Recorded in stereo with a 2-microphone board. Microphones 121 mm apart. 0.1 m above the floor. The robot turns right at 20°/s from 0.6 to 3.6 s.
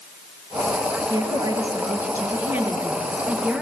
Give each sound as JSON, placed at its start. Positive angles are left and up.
{"t": 1.1, "sound": "a woman speaking", "azimuth_deg": -55, "distance_m": 1.9}